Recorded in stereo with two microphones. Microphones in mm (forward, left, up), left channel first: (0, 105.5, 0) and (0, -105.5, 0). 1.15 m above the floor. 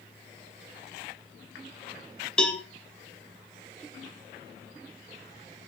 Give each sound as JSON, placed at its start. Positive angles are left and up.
{"t": 2.4, "sound": "a cowbell", "side_deg": 5, "distance_m": 1.1}